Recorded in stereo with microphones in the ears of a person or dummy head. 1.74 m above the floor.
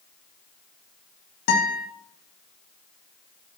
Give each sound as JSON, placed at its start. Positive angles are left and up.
{"t": 1.5, "sound": "a guitar", "side_deg": 60, "distance_m": 1.9}